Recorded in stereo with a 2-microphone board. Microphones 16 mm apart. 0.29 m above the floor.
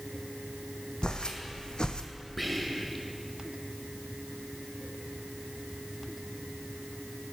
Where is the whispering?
Centre (ahead or behind), 1.0 m.